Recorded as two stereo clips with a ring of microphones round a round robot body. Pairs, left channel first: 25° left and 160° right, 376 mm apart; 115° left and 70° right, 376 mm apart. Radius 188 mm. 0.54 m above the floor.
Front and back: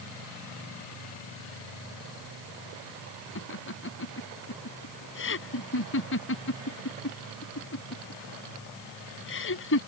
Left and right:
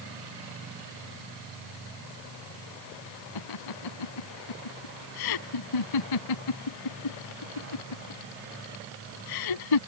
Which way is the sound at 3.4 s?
80° left.